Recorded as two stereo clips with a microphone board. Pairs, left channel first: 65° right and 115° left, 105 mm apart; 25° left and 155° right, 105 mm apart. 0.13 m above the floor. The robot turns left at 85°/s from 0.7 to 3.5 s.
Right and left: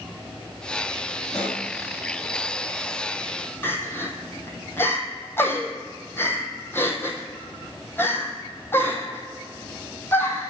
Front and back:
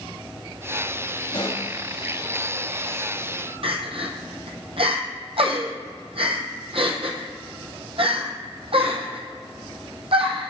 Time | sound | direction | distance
1.3 | a pop | 15° left | 1.7 m
3.6 | crying | 135° right | 1.0 m